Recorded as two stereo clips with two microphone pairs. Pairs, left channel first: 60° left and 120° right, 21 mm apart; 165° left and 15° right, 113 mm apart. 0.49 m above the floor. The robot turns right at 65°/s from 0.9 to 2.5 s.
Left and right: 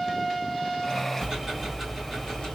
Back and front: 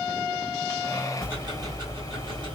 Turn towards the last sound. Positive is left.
turn(degrees=15)